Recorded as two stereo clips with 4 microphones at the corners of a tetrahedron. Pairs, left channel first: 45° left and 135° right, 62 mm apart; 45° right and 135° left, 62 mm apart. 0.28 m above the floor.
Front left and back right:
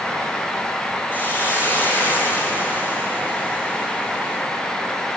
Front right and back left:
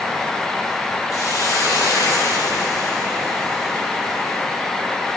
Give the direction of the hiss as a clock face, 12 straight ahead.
12 o'clock.